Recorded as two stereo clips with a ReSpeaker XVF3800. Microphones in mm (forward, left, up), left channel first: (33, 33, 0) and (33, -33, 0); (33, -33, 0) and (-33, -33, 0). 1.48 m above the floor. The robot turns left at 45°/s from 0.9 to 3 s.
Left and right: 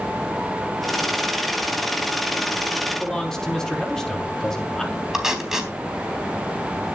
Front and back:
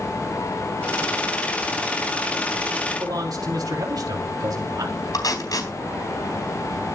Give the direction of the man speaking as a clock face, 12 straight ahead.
6 o'clock.